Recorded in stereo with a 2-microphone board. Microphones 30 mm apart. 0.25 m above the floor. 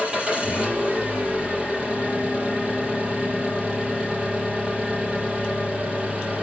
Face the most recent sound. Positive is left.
turn(degrees=-30)  # may be behind; listen again after turning